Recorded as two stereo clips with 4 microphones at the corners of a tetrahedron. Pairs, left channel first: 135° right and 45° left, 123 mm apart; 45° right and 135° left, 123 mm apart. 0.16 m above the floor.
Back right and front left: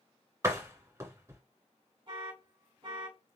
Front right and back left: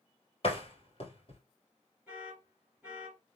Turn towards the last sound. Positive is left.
turn(degrees=60)